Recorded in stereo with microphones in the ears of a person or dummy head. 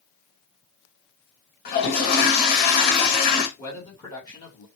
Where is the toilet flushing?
45° left (ahead or behind), 0.8 m.